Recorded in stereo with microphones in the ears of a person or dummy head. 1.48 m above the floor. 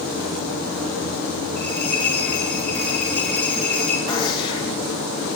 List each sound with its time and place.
1.6 s a bell: 10° left (ahead or behind), 4.5 m
4.1 s a gunshot: 30° left (ahead or behind), 2 m